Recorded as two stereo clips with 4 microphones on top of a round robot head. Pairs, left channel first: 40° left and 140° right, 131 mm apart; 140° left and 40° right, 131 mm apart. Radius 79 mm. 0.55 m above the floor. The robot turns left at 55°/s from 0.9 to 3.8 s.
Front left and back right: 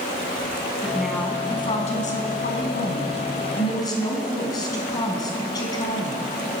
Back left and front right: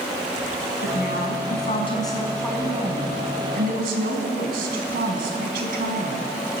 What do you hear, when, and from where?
0.8 s a woman speaking: 140° left, 4.5 m; by 6.2 s 20° right, 4.5 m